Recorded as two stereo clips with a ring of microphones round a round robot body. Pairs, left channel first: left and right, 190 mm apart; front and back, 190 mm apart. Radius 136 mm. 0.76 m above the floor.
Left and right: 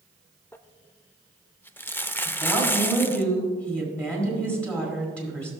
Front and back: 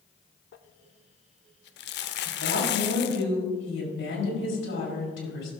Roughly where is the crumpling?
Ahead.